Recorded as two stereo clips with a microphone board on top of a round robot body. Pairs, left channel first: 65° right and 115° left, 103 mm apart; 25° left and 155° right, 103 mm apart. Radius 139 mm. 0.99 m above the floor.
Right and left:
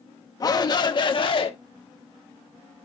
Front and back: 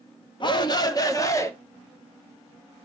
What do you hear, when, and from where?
0.4 s a shout: 20° right, 1.4 m; by 1.5 s 40° right, 1.6 m